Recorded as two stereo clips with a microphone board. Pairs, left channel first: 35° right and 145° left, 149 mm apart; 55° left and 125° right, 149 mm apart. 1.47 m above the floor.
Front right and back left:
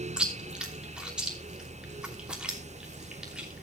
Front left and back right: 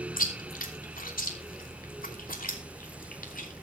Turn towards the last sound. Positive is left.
turn(degrees=60)